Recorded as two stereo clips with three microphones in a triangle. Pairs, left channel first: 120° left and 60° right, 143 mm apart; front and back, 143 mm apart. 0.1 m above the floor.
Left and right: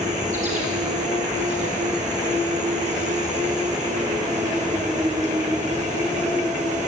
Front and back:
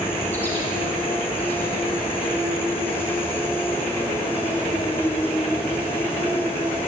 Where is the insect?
75° right, 4.5 m.